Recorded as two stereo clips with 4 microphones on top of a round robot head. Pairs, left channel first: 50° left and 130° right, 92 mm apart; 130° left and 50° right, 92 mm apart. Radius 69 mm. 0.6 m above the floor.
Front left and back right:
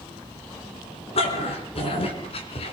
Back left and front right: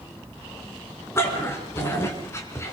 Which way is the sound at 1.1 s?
65° left.